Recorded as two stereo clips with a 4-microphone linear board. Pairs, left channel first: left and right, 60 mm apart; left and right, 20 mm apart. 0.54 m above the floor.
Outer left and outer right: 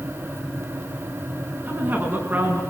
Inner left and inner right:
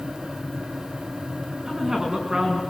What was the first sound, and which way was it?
A woman speaking, 35° right (ahead or behind).